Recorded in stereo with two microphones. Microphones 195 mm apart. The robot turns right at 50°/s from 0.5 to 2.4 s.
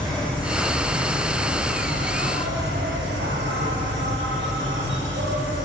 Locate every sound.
0.0 s an insect: 175° left, 7.5 m; by 5.7 s 90° right, 7.5 m